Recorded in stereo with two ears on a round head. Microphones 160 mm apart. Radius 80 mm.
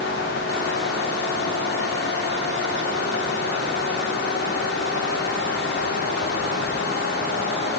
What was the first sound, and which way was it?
Only background noise.